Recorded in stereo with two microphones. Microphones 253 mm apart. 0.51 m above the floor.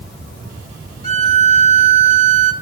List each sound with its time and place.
1.0 s a violin: 25° right (ahead or behind), 1.4 m